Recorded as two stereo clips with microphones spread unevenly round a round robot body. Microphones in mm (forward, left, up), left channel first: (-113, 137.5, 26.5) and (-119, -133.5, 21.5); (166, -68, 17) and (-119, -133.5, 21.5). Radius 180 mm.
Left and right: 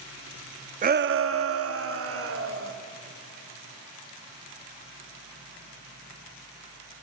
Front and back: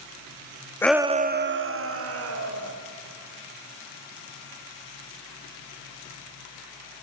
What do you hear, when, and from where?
0.8 s a shout: 60° right, 0.6 m; by 2.7 s 130° right, 2.5 m